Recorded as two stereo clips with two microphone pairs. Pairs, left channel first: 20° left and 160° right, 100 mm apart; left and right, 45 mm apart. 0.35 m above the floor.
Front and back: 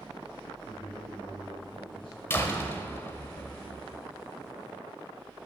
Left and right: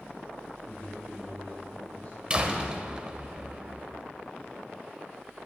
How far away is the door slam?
About 1.2 m.